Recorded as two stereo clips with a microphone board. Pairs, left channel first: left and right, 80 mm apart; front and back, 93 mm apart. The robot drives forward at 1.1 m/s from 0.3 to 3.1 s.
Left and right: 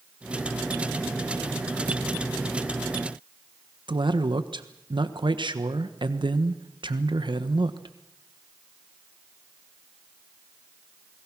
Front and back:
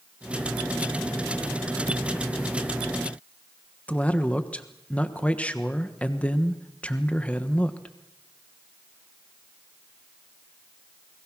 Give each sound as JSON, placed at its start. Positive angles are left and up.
{"t": 3.9, "sound": "a man speaking", "azimuth_deg": -75, "distance_m": 1.3}